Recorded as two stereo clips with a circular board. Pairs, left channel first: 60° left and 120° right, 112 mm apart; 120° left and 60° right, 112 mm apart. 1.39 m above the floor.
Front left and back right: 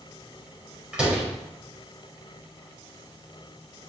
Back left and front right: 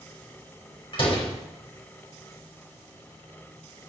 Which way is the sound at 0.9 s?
155° left.